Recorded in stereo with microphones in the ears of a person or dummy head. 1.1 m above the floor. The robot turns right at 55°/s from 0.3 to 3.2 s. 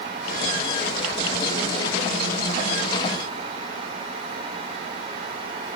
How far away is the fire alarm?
I don't hear a fire alarm.